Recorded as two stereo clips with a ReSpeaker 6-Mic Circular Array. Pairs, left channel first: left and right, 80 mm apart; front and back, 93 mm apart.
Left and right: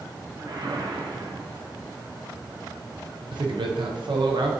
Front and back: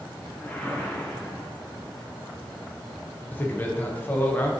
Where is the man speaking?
70° right, 0.6 m.